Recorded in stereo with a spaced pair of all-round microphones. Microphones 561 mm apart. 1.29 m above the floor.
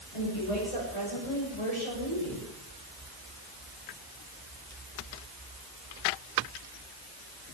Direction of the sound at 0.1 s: 70° left (ahead or behind).